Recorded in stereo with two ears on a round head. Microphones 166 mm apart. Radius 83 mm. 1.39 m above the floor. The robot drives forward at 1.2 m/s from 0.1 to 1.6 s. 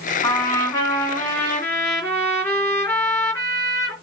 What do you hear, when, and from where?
0.2 s a trumpet: 15° left (ahead or behind), 2 m; by 3.9 s 10° left (ahead or behind), 3.5 m